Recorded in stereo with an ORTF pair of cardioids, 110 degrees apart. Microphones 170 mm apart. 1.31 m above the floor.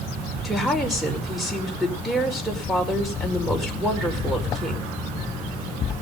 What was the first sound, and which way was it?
A woman speaking, straight ahead.